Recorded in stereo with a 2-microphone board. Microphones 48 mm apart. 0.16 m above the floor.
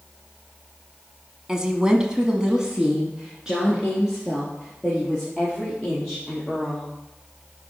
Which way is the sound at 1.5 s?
15° right (ahead or behind).